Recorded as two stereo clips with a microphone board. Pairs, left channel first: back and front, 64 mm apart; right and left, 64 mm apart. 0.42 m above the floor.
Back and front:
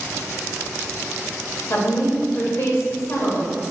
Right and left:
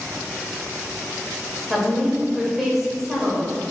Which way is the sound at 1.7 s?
Straight behind.